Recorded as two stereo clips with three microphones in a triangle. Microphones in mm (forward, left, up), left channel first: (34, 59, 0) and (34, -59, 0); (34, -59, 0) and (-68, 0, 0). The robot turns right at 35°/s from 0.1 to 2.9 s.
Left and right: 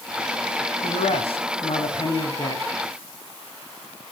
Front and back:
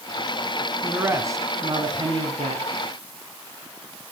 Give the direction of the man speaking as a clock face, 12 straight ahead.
9 o'clock.